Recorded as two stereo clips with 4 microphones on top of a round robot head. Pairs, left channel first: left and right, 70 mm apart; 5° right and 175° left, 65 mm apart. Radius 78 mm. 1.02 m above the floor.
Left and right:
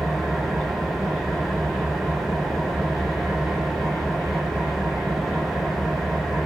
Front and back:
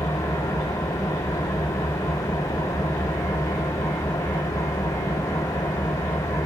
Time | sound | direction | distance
0.0 | an engine running | straight ahead | 3 m